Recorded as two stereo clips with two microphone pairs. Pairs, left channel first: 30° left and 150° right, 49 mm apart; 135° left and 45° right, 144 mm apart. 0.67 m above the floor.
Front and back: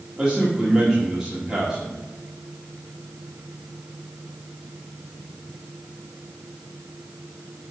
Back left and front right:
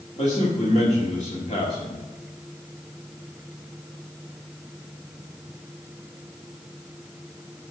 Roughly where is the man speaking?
Behind left.